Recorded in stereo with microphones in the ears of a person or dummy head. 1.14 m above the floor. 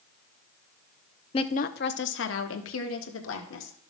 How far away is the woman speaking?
About 0.5 m.